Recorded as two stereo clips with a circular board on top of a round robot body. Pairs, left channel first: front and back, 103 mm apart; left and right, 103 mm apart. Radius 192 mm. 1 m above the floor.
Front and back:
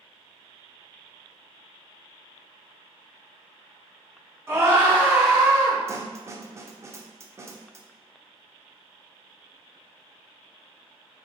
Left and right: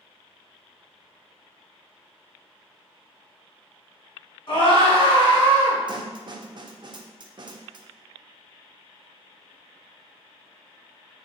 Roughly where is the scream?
Behind left.